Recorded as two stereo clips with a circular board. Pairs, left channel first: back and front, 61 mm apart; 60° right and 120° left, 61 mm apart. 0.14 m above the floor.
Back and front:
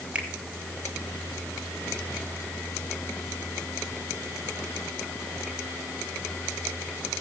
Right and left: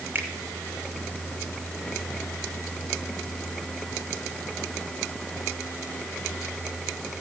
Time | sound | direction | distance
0.1 | a finger snap | 70° left | 1.9 m